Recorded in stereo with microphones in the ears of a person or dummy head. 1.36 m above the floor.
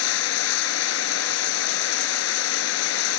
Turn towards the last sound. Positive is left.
turn(degrees=70)  # may be behind; listen again after turning